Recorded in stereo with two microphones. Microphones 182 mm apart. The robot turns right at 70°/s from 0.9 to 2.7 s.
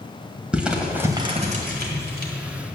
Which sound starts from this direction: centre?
Crumpling, at 0.5 s.